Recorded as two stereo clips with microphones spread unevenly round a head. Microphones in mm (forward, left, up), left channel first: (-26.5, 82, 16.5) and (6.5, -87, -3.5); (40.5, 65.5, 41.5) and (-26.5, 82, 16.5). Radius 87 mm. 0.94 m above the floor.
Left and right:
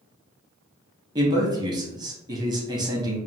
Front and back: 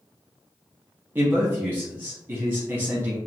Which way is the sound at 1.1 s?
140° right.